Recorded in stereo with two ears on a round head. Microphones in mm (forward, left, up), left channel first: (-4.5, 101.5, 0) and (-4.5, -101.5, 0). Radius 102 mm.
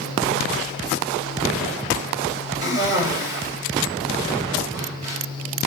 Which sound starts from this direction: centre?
A cough, at 2.6 s.